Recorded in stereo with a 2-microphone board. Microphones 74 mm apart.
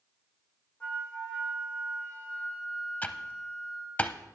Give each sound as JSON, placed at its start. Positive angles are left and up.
{"t": 0.8, "sound": "a flute", "side_deg": 15, "distance_m": 3.0}
{"t": 3.0, "sound": "typing on a keyboard", "side_deg": 25, "distance_m": 0.6}